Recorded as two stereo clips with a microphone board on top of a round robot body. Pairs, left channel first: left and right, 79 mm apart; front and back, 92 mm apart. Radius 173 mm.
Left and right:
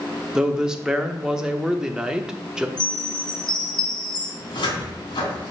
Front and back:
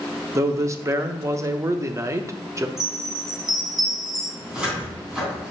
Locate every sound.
0.3 s a man speaking: 165° right, 1.0 m
2.8 s a chime: 95° left, 2 m
4.4 s a cupboard door: 100° left, 3 m